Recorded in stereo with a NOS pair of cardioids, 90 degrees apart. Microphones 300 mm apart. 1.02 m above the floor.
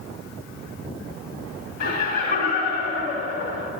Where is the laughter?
55° left, 2.5 m.